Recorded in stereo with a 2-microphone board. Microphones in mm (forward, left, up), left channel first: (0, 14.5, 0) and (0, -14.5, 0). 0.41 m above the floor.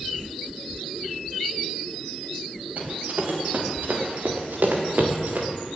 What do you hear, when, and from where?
2.8 s running footsteps: 60° right (ahead or behind), 5 m